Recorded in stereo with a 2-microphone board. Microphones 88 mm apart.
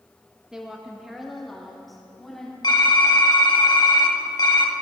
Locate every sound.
0.5 s a woman speaking: 10° right (ahead or behind), 0.8 m; by 2.5 s centre (ahead or behind), 2 m
2.6 s typing on a keyboard: 55° left (ahead or behind), 1.0 m